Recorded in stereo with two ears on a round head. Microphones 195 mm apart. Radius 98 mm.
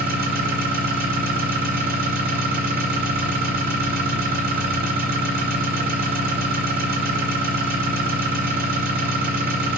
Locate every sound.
0.0 s an engine running: 45° right (ahead or behind), 2 m